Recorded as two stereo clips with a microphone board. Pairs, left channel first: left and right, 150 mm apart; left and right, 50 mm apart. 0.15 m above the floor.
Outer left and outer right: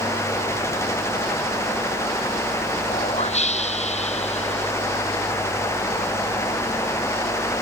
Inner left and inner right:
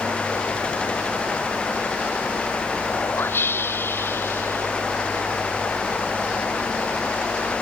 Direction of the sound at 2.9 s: 50° left (ahead or behind).